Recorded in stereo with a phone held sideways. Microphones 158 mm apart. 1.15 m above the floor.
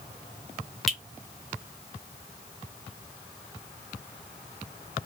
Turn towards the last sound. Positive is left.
turn(degrees=0)  # may be behind; listen again after turning